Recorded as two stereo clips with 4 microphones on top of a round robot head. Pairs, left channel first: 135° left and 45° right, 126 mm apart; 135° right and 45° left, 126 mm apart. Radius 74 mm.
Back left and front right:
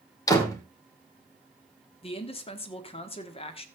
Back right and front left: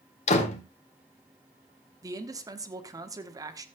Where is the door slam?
165° right, 2 m.